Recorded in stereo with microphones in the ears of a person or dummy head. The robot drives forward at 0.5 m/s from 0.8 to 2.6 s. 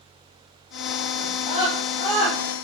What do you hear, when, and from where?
1.2 s a scream: 40° left (ahead or behind), 5.5 m